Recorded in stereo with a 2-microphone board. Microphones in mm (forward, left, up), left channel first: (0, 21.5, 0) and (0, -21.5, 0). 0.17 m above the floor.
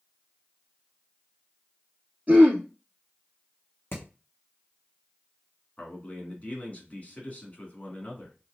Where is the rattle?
I don't hear a rattle.